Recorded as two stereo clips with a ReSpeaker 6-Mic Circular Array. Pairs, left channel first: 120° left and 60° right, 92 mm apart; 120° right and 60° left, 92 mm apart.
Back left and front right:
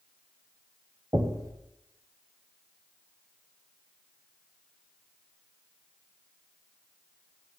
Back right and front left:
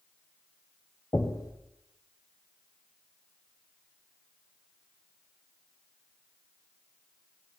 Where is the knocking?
85° right, 1.3 m.